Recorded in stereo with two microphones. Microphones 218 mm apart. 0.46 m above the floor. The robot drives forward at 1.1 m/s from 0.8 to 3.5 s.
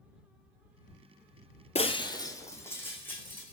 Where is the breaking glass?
30° left (ahead or behind), 0.5 m; by 3.5 s 5° left (ahead or behind), 2.5 m.